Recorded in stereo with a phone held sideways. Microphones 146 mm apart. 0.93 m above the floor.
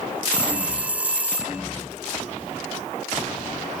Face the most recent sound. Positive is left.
turn(degrees=-10)  # may be behind; listen again after turning